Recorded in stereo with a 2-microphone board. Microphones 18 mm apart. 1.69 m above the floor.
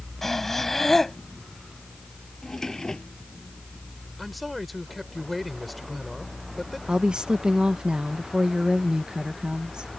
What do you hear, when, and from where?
0.2 s breathing: 15° left (ahead or behind)
2.4 s a drawer: 25° left (ahead or behind)
4.2 s a man speaking: 5° right (ahead or behind)
6.9 s a woman speaking: 60° right (ahead or behind)